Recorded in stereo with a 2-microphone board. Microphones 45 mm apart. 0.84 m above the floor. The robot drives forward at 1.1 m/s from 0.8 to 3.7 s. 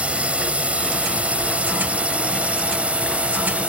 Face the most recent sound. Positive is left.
turn(degrees=-30)  # may be behind; listen again after turning